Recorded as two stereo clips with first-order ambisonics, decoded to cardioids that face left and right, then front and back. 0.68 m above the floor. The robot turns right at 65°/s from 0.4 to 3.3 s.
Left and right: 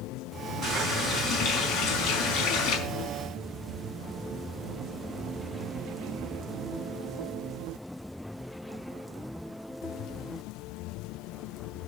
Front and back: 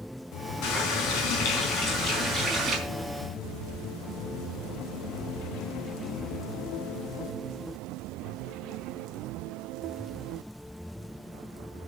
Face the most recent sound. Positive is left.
turn(degrees=145)